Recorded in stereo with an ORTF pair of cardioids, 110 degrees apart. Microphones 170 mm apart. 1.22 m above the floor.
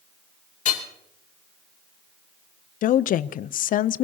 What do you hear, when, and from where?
0.7 s hammering: 50° left, 2.5 m
2.8 s a woman speaking: 55° left, 0.6 m